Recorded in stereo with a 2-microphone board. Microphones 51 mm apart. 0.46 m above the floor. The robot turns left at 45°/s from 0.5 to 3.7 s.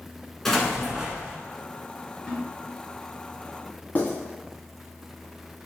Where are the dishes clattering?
I don't hear dishes clattering.